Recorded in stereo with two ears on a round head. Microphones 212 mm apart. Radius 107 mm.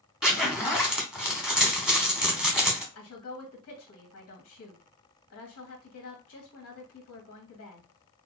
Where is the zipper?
5° right (ahead or behind), 1.0 m.